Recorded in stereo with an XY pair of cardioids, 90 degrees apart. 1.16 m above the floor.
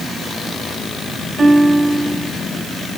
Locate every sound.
1.4 s a guitar: 35° right, 3 m